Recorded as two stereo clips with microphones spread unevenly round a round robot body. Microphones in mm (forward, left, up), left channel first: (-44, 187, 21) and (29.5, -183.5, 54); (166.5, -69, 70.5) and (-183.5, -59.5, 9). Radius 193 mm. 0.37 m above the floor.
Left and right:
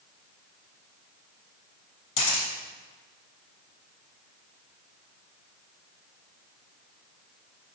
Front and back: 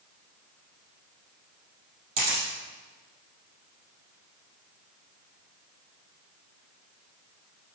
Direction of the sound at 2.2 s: 160° left.